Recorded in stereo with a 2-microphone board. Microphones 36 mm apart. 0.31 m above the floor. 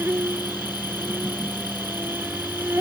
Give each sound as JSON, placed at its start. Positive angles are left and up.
{"t": 0.0, "sound": "an insect", "side_deg": -80}